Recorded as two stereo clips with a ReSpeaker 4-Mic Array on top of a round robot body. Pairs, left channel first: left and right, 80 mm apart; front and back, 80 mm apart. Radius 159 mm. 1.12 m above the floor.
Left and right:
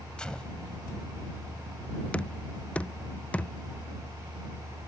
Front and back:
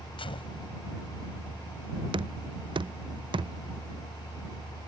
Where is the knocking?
165° left.